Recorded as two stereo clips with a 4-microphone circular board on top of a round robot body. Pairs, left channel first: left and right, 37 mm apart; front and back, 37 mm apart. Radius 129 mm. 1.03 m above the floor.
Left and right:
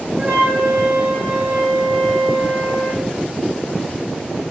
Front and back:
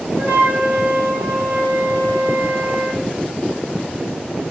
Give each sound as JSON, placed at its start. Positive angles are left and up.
{"t": 0.2, "sound": "a flute", "azimuth_deg": -145, "distance_m": 5.0}